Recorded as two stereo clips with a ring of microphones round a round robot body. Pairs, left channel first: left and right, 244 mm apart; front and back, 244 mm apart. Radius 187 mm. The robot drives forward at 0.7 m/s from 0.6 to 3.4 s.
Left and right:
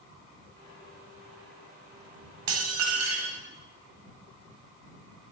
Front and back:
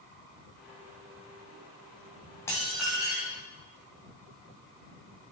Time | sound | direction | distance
2.5 | dishes clattering | 80° right | 1.5 m